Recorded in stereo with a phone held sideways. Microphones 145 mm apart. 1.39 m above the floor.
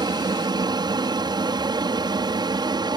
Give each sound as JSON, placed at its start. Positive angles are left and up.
{"t": 0.0, "sound": "an aircraft", "side_deg": -30}